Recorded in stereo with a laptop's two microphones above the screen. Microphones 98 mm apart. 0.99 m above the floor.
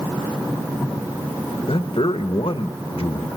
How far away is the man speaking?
About 0.8 m.